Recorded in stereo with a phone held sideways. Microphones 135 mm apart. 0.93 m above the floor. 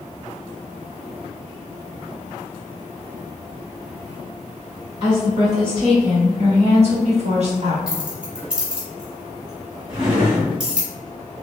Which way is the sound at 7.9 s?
5° right (ahead or behind).